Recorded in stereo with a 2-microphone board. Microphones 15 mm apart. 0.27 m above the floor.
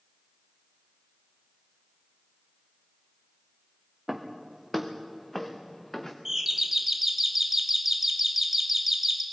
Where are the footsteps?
5° right (ahead or behind), 2.5 m; by 6.2 s 25° left (ahead or behind), 2.0 m.